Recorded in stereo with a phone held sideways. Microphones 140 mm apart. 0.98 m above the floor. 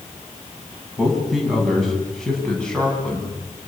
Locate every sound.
1.0 s a man speaking: centre (ahead or behind), 9 m; by 3.3 s 10° left (ahead or behind), 9.5 m